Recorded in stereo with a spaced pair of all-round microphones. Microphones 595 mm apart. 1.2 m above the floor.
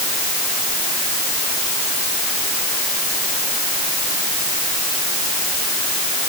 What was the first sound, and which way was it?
Only background noise.